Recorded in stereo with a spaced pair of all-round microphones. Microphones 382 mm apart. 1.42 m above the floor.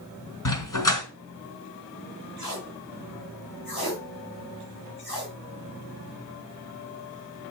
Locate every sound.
0.5 s a dog barking: 55° left (ahead or behind), 1.9 m
2.4 s tape being pulled: 65° left (ahead or behind), 4 m